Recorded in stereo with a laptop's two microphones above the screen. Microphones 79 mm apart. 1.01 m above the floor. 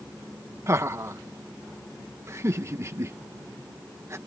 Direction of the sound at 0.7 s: 40° right (ahead or behind).